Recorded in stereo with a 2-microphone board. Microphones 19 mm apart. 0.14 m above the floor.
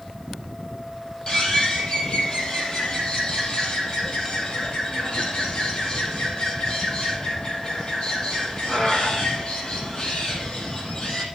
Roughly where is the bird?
Left.